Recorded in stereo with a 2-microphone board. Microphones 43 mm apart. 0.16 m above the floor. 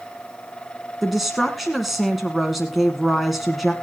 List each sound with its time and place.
1.0 s a woman speaking: 5° right (ahead or behind), 1.4 m